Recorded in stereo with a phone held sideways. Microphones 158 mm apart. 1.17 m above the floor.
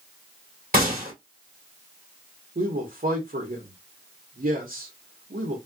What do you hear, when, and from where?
0.7 s a gunshot: 60° right (ahead or behind), 2.5 m
2.5 s a man speaking: 70° right (ahead or behind), 1.1 m